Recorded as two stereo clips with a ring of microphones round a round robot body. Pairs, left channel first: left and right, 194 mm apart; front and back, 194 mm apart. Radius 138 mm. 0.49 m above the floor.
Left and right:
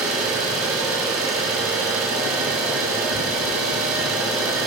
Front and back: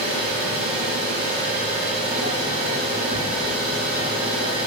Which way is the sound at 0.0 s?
110° right.